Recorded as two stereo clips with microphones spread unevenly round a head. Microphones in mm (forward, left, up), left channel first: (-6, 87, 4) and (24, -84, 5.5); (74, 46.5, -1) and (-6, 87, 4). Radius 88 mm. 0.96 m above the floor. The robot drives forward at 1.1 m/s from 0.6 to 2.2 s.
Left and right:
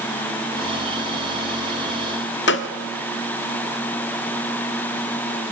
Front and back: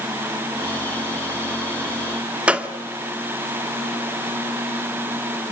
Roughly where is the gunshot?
Left.